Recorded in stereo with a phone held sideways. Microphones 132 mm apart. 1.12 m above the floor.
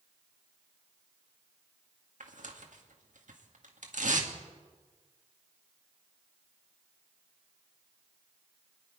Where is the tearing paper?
80° right, 1.7 m.